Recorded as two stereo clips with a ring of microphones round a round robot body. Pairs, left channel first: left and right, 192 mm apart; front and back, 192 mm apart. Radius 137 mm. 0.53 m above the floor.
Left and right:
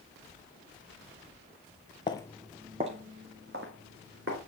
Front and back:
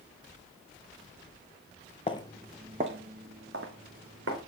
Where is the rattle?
No rattle in this recording.